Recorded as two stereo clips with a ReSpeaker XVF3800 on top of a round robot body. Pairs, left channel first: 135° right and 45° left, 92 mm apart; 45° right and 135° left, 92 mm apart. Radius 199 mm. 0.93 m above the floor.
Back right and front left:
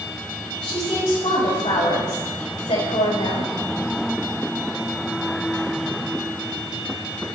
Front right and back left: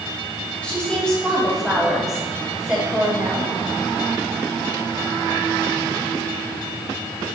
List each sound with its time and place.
0.6 s a woman speaking: 120° right, 6.5 m; by 3.5 s 155° right, 5.5 m